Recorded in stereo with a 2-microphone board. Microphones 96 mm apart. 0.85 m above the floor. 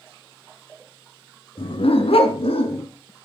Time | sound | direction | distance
1.6 | a dog barking | 70° left (ahead or behind) | 1.9 m